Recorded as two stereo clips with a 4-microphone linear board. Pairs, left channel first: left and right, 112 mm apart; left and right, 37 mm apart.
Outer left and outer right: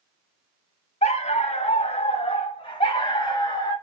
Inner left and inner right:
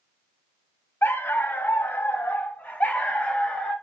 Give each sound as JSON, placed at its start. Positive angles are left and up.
{"t": 1.0, "sound": "a dog barking", "side_deg": 85, "distance_m": 1.1}